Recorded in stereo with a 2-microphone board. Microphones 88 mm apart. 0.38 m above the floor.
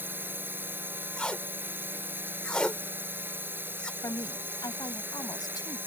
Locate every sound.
0.0 s a drone: 25° right (ahead or behind)
1.2 s tape being pulled: 10° left (ahead or behind)
4.0 s a woman speaking: 55° left (ahead or behind)